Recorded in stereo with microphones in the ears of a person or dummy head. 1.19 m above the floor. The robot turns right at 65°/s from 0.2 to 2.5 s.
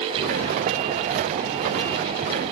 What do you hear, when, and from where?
Only background noise.